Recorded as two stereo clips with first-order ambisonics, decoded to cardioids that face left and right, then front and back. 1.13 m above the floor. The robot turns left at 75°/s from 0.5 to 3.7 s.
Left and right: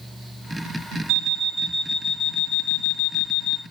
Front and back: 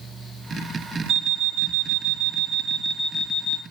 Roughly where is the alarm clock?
Behind right.